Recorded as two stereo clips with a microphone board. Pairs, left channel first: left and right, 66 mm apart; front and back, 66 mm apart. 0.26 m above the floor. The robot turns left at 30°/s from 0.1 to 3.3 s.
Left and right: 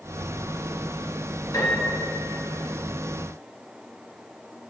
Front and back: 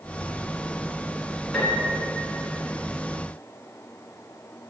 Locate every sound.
1.5 s a piano: 90° left, 1.5 m; by 2.1 s 75° left, 1.5 m